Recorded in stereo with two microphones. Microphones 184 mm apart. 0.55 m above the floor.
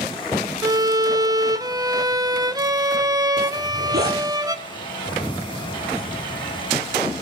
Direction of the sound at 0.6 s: 20° right (ahead or behind).